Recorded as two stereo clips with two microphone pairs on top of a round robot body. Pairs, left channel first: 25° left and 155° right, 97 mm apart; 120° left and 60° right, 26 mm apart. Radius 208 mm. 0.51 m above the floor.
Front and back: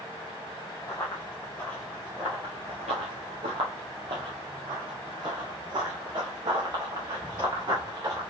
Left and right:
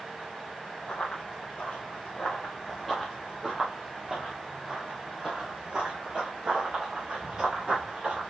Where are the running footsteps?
90° left, 1.0 m; by 8.3 s 110° right, 3 m.